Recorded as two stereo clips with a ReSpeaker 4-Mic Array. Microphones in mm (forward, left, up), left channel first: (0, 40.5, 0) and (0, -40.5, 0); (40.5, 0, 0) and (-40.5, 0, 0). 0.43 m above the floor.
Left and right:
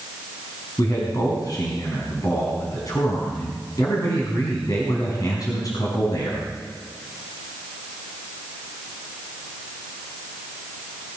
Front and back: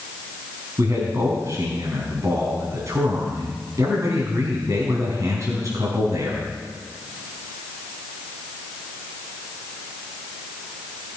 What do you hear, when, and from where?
0.8 s a man speaking: 130° left, 4.5 m